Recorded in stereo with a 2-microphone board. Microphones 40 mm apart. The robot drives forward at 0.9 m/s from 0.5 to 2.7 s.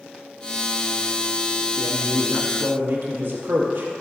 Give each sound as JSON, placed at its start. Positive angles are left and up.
{"t": 1.8, "sound": "a man speaking", "side_deg": -85, "distance_m": 1.5}